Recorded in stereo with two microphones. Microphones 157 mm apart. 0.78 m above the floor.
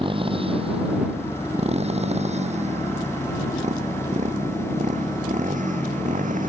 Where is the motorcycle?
35° right (ahead or behind); by 6.5 s 55° right (ahead or behind).